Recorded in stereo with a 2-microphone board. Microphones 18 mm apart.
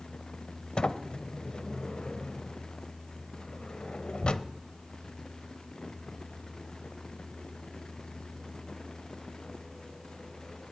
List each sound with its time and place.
0.8 s a sliding door: 60° left (ahead or behind), 0.7 m